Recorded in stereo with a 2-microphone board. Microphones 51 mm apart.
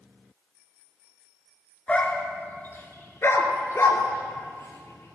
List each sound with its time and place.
1.9 s a dog barking: 20° left (ahead or behind), 1.2 m; by 5.2 s 75° left (ahead or behind), 1.9 m